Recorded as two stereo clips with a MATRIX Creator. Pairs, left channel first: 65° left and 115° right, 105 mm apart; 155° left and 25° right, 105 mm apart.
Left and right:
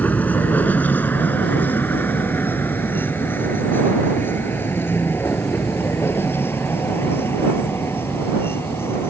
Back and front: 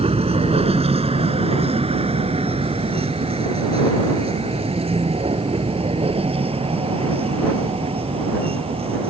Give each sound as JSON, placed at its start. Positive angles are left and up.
{"t": 0.0, "sound": "a vehicle", "azimuth_deg": -5}